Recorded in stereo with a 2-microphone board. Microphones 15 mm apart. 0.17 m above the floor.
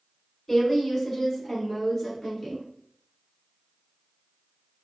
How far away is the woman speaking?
About 1.3 m.